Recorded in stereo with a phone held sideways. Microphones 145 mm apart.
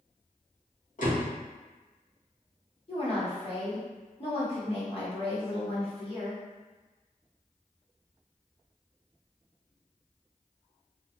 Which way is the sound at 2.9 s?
40° left (ahead or behind).